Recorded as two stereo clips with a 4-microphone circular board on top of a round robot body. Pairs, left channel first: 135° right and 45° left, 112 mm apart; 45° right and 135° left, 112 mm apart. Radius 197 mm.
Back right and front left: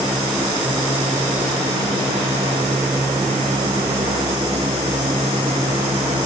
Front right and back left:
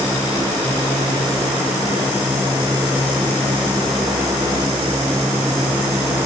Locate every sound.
Only background noise.